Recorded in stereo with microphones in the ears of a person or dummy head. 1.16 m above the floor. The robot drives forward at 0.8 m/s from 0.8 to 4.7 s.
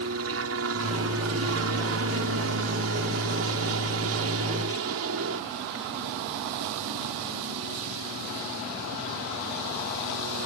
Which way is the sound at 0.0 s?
65° right (ahead or behind).